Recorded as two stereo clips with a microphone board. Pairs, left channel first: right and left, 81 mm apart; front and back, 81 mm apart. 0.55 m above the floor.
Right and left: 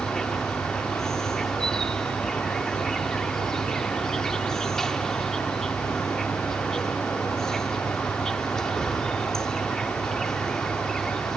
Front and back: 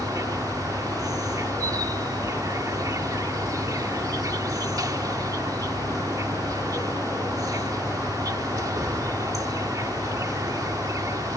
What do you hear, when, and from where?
0.0 s an insect: 175° right